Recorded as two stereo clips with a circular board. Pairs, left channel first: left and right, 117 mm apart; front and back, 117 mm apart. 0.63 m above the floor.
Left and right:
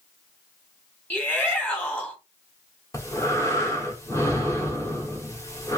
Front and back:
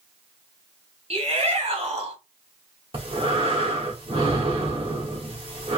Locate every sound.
1.1 s a shout: 165° left, 2 m
2.9 s breathing: 150° left, 1.5 m